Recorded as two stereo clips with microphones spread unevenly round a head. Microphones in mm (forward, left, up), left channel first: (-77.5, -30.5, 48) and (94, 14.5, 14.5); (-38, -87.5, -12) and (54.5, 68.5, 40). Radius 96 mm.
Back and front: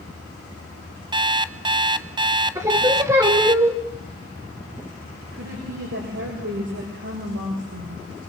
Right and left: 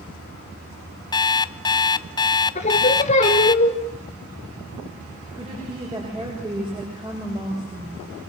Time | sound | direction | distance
1.1 | an alarm clock | 45° right | 0.7 m
2.5 | singing | 60° right | 3 m
5.3 | a woman speaking | 5° right | 7.5 m